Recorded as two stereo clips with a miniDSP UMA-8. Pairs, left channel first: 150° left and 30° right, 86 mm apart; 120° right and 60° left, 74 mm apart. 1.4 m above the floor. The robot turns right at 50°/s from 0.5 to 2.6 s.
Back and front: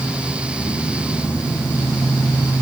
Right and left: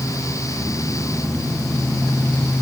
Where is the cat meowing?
No cat meowing in this recording.